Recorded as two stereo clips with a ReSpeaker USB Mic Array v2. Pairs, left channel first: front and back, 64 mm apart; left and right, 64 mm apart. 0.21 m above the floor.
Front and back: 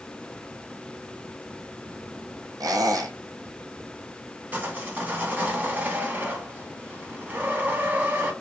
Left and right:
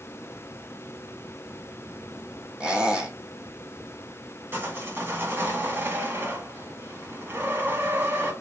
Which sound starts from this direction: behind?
A squeak, at 2.6 s.